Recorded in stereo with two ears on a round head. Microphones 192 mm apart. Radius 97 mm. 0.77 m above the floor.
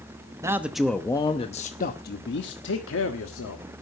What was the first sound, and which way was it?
A man speaking, 15° right (ahead or behind).